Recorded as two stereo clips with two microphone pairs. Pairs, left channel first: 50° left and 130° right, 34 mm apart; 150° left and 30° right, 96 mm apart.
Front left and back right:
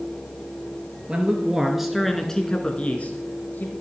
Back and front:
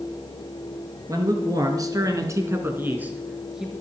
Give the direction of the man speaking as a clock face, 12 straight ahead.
2 o'clock.